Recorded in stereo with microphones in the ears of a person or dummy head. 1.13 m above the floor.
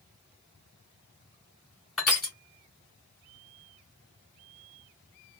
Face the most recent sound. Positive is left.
turn(degrees=0)  # may be behind; listen again after turning